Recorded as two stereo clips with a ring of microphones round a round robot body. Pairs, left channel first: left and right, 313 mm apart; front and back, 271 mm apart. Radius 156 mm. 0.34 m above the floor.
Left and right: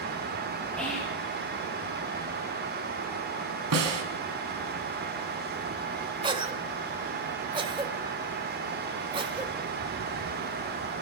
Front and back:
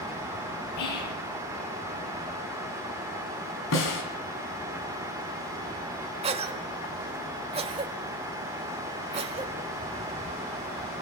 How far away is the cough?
About 1.2 m.